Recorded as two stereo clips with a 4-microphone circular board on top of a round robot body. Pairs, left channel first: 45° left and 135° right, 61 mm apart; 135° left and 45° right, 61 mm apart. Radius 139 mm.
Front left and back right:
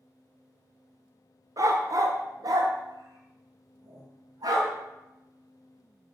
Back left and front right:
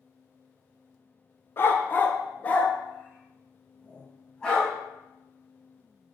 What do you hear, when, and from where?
1.6 s a dog barking: 170° right, 1.0 m; by 4.7 s 150° right, 2.5 m